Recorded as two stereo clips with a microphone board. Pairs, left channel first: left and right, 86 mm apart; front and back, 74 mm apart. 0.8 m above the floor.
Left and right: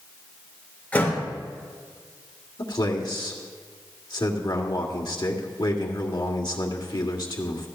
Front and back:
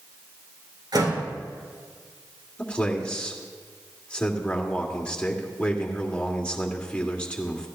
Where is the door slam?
160° left, 3.5 m.